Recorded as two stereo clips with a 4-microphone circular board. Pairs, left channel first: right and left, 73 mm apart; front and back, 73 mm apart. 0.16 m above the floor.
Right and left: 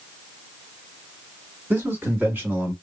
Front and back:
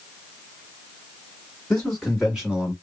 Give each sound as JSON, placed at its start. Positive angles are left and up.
{"t": 1.7, "sound": "a man speaking", "azimuth_deg": 70, "distance_m": 1.4}